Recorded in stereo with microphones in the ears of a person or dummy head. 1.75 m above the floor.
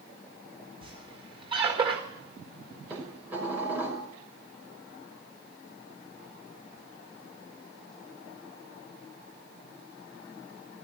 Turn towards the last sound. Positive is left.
turn(degrees=-15)  # may be behind; listen again after turning